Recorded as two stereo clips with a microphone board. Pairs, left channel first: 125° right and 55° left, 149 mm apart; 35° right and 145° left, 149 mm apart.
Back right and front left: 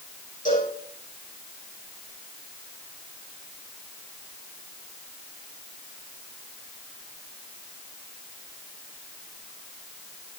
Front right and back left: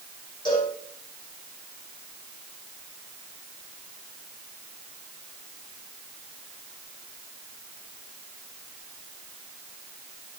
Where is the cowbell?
95° right, 8.5 m.